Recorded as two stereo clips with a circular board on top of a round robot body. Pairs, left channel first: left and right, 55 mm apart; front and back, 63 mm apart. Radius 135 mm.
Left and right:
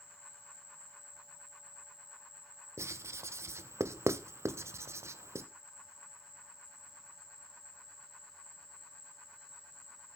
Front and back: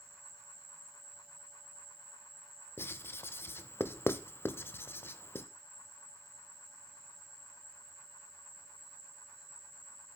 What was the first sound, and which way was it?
An insect, 140° left.